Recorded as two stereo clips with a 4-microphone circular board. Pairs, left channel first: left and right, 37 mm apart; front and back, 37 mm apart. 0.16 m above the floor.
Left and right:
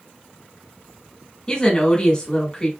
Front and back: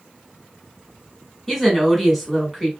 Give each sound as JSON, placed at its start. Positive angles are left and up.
{"t": 1.5, "sound": "a woman speaking", "azimuth_deg": 80, "distance_m": 1.3}